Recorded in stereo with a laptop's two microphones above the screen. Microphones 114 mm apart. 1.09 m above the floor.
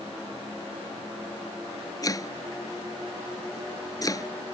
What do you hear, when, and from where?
2.0 s chopping: 30° left (ahead or behind)